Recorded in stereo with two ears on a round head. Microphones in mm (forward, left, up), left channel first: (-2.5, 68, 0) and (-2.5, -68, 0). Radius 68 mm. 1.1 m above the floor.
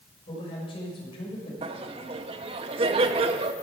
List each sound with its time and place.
0.3 s a man speaking: 35° left (ahead or behind), 6 m
1.6 s laughter: 35° right (ahead or behind), 1.4 m